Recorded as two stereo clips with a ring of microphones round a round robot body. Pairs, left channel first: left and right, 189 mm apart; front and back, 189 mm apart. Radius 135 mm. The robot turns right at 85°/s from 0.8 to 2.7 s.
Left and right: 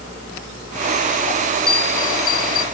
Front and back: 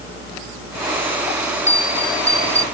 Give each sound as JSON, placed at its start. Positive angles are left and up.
{"t": 1.7, "sound": "a bell", "azimuth_deg": 55}